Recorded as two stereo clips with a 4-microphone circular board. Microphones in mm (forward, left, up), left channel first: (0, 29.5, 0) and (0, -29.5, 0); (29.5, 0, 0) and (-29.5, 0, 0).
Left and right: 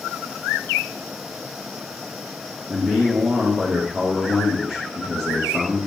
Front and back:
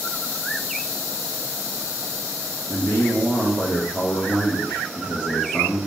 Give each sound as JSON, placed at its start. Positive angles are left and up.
{"t": 2.7, "sound": "a man speaking", "azimuth_deg": -15, "distance_m": 0.8}